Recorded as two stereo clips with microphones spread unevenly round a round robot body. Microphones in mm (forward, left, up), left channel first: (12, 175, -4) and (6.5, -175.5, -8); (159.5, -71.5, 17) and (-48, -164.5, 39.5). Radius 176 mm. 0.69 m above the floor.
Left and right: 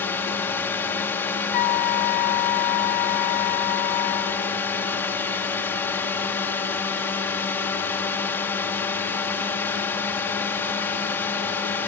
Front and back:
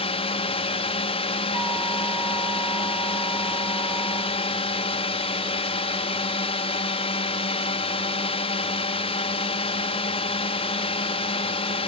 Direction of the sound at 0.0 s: 10° left.